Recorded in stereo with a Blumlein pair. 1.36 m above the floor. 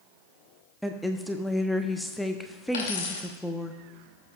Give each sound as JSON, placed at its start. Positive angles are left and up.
{"t": 0.8, "sound": "a woman speaking", "azimuth_deg": 0, "distance_m": 0.8}
{"t": 2.7, "sound": "a dropped coin", "azimuth_deg": 55, "distance_m": 2.5}